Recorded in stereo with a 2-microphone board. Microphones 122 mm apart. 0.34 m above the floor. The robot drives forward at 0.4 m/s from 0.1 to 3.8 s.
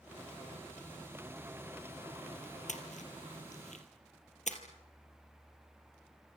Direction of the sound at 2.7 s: 85° left.